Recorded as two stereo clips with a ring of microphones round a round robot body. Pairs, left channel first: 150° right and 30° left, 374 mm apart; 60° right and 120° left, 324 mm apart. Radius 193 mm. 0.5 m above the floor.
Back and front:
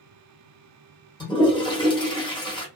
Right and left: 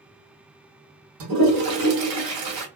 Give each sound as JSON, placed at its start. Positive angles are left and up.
{"t": 1.2, "sound": "a toilet flushing", "azimuth_deg": 135, "distance_m": 1.1}